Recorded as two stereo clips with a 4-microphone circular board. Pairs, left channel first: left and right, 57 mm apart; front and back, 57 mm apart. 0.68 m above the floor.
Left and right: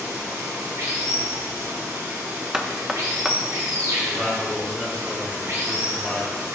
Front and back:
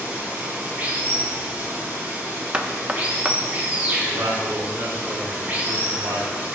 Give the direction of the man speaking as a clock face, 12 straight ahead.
6 o'clock.